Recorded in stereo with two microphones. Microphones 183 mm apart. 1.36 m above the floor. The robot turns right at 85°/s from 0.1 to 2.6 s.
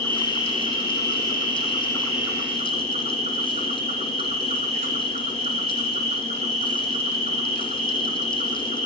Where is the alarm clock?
I don't hear an alarm clock.